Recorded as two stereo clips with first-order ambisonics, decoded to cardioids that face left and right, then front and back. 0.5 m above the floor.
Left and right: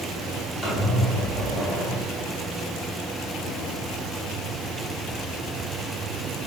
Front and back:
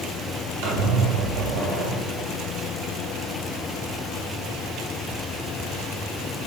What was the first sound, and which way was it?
A squeak, 170° left.